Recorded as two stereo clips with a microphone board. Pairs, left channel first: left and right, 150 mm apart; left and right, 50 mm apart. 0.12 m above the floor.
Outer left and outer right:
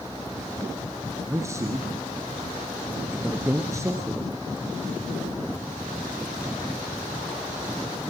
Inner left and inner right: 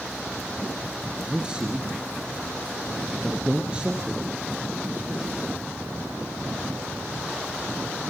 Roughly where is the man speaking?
Centre.